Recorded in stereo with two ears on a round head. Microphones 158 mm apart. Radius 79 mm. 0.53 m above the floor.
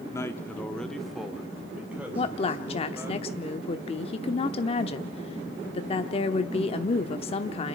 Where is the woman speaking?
35° left (ahead or behind), 0.9 m.